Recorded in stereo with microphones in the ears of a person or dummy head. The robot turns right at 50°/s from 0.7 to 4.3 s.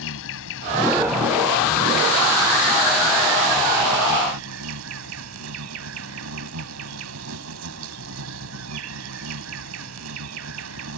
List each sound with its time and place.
0.0 s an insect: 75° left; by 11.0 s 105° right